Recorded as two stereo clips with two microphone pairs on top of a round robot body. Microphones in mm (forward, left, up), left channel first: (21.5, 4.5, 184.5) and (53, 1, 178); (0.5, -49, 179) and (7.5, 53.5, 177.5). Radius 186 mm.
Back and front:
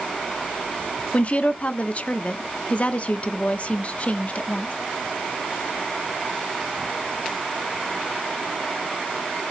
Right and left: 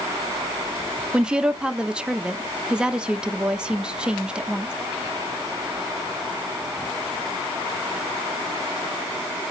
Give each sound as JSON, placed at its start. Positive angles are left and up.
{"t": 1.1, "sound": "a woman speaking", "azimuth_deg": 155, "distance_m": 0.8}